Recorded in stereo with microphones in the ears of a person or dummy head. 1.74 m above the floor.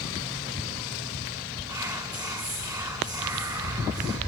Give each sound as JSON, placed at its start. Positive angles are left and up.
{"t": 1.7, "sound": "whispering", "side_deg": -15, "distance_m": 0.5}